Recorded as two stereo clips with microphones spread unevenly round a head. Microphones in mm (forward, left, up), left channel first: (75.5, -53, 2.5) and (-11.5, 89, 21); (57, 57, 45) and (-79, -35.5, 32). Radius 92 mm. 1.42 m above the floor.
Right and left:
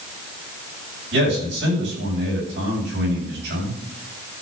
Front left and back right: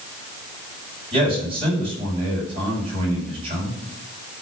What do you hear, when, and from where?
1.1 s a man speaking: 155° left, 7 m